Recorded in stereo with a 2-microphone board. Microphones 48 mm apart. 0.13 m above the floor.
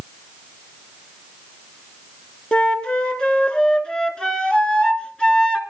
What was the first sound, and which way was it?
A flute, 20° left (ahead or behind).